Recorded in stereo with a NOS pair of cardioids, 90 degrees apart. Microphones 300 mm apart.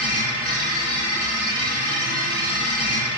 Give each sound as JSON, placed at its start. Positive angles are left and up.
{"t": 0.0, "sound": "a machine running", "azimuth_deg": 15, "distance_m": 1.9}